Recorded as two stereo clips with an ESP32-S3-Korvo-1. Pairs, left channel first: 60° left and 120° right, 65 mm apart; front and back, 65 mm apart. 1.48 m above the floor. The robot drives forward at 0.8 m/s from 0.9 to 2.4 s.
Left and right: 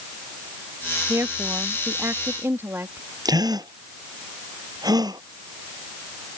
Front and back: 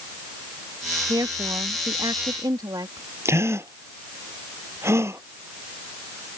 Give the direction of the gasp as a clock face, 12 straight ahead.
4 o'clock.